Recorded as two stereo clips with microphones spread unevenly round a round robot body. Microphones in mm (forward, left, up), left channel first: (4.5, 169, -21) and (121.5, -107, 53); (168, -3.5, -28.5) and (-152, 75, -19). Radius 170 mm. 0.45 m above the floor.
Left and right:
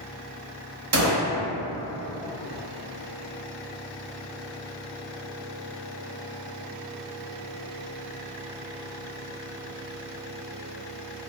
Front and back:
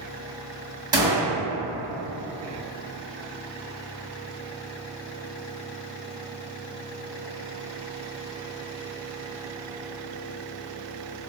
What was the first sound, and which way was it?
A gunshot, 115° right.